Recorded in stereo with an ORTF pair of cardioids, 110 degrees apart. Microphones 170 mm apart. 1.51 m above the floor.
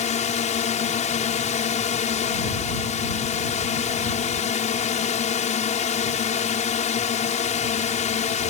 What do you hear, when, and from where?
0.0 s a drone: 45° left